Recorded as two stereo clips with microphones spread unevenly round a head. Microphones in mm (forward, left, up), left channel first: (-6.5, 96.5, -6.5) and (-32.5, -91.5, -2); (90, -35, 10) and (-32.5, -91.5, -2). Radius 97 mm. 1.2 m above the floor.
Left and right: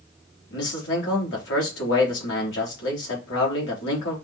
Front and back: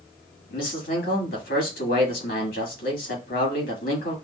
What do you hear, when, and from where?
0.5 s a man speaking: 45° left, 2.5 m